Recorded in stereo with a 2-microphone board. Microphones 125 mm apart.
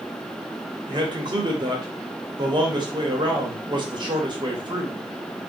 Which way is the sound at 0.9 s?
35° right (ahead or behind).